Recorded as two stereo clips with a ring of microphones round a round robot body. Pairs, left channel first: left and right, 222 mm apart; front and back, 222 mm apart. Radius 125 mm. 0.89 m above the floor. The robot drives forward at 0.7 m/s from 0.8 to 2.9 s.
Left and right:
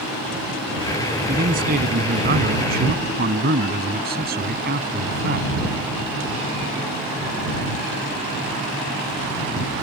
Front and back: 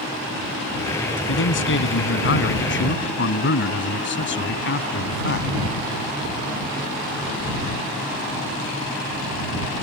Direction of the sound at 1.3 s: 30° right.